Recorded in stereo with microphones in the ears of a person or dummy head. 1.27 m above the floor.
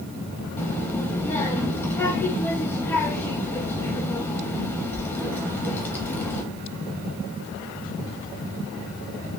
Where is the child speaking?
10° left (ahead or behind), 0.9 m.